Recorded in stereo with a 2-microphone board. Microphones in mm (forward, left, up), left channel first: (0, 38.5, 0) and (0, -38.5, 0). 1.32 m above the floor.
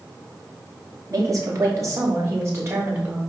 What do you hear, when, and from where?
1.1 s a woman speaking: 45° right (ahead or behind), 2.5 m; by 3.2 s 35° right (ahead or behind), 4 m